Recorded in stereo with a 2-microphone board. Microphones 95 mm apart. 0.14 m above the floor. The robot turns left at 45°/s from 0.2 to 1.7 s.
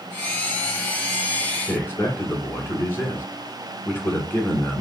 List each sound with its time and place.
1.7 s a man speaking: 25° left (ahead or behind), 1.4 m